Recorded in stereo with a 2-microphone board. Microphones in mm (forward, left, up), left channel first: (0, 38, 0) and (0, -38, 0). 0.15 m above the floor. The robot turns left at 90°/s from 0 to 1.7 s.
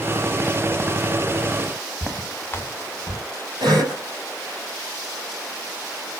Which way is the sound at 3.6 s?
65° right (ahead or behind).